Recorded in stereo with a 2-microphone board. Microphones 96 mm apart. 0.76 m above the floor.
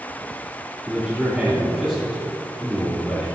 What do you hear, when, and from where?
0.9 s a man speaking: 15° right (ahead or behind), 2.0 m